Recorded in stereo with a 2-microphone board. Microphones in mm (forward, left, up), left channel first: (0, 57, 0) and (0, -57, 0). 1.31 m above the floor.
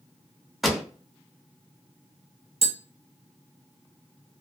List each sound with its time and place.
0.6 s a pop: centre (ahead or behind), 0.5 m
2.6 s tapping: 60° right (ahead or behind), 0.7 m